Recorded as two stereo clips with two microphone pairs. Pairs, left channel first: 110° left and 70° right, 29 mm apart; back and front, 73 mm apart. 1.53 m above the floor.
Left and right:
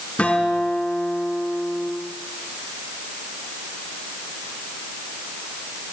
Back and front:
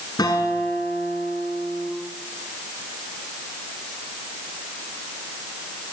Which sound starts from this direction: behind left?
A guitar, at 0.2 s.